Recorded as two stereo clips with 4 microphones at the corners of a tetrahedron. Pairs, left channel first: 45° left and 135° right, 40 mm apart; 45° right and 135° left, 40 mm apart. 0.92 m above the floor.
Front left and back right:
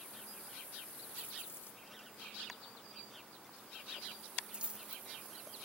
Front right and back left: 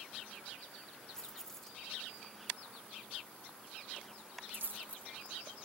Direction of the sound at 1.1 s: 30° left.